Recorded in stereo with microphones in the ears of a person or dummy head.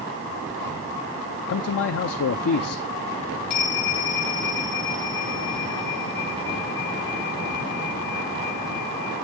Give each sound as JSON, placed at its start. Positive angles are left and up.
{"t": 1.5, "sound": "a man speaking", "side_deg": 65, "distance_m": 0.6}
{"t": 3.5, "sound": "a bell", "side_deg": 45, "distance_m": 6.0}